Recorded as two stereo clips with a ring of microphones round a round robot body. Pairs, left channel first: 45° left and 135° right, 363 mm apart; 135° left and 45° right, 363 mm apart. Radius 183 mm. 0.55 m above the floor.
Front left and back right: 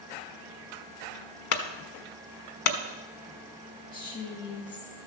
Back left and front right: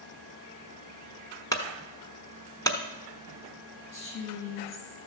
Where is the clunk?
55° left, 1.2 m.